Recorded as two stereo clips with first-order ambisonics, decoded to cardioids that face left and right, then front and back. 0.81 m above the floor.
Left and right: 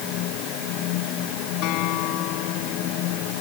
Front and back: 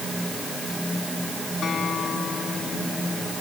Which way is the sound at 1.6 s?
65° left.